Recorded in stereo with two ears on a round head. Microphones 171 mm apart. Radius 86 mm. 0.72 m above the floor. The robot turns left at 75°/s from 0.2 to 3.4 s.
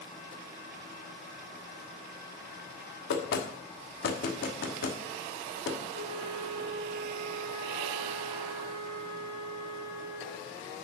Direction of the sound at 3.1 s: 60° left (ahead or behind).